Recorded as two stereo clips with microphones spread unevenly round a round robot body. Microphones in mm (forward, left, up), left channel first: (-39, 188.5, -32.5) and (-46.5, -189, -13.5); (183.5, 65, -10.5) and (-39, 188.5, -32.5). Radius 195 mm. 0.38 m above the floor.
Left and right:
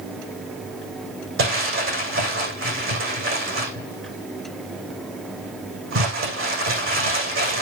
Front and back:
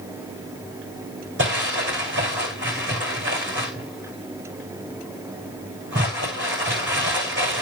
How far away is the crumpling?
About 7 m.